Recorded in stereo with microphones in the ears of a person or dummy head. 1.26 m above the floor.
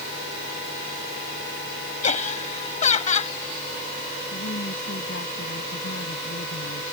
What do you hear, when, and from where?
2.0 s laughter: 35° left (ahead or behind)
4.3 s a woman speaking: 60° left (ahead or behind)